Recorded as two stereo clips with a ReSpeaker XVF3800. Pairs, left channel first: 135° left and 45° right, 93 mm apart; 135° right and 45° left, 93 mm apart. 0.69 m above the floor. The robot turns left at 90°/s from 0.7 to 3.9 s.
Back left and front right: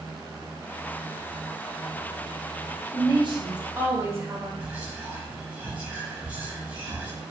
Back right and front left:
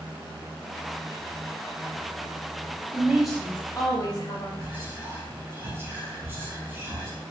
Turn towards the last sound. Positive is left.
turn(degrees=15)